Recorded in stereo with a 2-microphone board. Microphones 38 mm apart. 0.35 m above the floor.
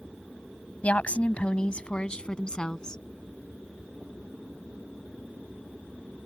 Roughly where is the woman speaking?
Left.